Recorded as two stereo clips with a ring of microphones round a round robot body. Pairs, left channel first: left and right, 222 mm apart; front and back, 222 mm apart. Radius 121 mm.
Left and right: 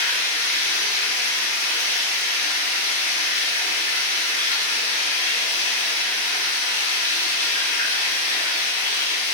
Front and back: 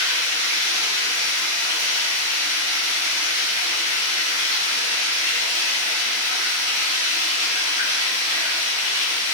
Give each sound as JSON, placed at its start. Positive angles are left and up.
{"t": 0.0, "sound": "running water", "azimuth_deg": 130, "distance_m": 1.3}